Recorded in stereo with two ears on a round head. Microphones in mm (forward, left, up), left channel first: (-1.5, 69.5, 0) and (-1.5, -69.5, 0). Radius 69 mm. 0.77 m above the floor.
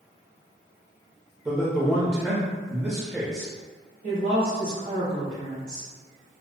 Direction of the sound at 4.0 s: 60° right (ahead or behind).